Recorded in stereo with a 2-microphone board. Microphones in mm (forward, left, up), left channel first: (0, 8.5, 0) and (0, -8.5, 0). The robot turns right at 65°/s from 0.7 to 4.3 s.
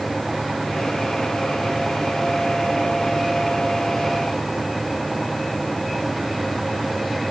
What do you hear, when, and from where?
Only background noise.